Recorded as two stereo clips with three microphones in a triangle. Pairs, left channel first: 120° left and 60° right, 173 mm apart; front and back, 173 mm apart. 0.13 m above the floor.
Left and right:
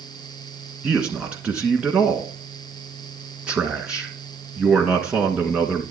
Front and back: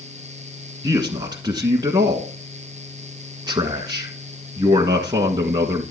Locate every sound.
0.8 s a man speaking: 140° right, 1.4 m